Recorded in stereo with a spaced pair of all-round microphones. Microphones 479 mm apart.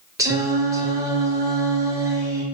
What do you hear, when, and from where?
0.2 s singing: 5° right (ahead or behind), 0.7 m